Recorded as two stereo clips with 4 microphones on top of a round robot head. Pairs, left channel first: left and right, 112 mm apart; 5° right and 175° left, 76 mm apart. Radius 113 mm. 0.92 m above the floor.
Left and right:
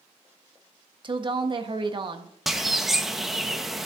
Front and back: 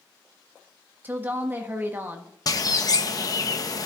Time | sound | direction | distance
1.0 | a woman speaking | 125° right | 1.1 m
2.5 | a bird | straight ahead | 0.9 m